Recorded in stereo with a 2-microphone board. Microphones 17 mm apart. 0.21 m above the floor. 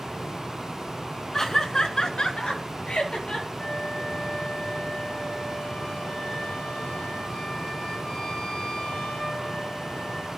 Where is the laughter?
25° left (ahead or behind), 2 m; by 3.5 s 75° left (ahead or behind), 4 m.